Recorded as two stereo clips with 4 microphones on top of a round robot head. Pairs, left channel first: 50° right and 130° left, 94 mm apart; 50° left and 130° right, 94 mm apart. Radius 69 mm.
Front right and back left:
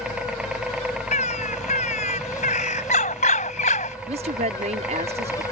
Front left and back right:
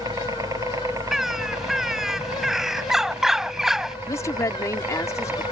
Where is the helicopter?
155° right; by 5.5 s 165° right.